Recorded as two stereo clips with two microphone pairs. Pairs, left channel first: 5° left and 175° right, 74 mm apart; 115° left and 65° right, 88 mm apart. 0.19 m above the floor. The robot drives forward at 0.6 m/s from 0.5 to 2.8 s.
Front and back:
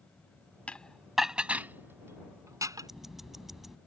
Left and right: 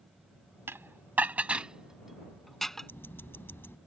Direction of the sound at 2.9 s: 100° left.